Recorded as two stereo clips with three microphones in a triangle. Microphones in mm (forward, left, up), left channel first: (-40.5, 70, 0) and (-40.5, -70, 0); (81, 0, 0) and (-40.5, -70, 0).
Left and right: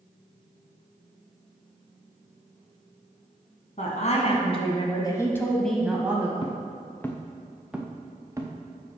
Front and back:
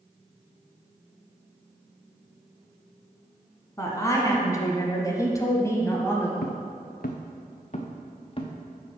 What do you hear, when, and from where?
3.8 s a woman speaking: 95° left, 1.9 m; by 6.3 s 30° right, 1.3 m
6.4 s footsteps: 35° left, 1.0 m; by 8.5 s 25° right, 1.5 m